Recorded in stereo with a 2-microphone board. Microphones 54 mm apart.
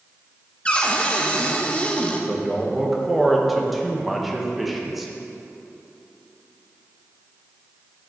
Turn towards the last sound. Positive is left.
turn(degrees=-5)  # may be behind; listen again after turning